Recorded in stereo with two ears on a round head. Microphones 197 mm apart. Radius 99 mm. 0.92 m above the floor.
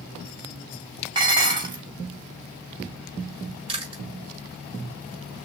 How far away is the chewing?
About 3.5 m.